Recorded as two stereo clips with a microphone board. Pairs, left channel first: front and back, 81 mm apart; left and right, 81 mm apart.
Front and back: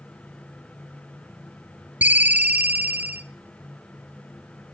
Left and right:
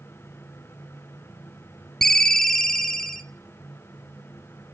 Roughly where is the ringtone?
Behind.